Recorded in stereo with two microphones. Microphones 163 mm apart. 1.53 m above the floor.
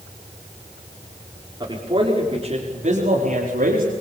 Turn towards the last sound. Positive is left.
turn(degrees=-65)  # may be behind; listen again after turning